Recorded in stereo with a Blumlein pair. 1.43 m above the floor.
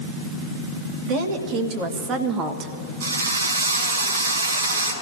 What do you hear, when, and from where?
1.1 s a woman speaking: 40° right, 3 m; by 2.7 s 25° right, 1.4 m
3.0 s a drill: 65° right, 5 m